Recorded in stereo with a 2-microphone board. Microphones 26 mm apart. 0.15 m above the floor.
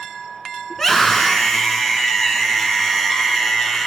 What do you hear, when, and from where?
0.7 s a scream: 15° left (ahead or behind), 1.6 m